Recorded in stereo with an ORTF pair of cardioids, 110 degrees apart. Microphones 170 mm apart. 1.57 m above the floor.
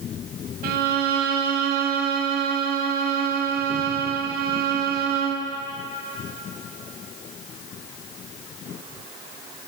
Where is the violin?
65° right, 0.6 m.